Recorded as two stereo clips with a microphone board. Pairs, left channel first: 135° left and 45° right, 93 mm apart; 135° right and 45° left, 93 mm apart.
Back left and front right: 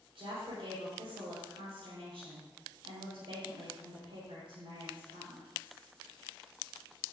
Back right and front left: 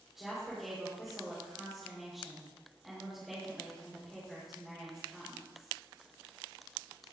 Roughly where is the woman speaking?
Ahead right.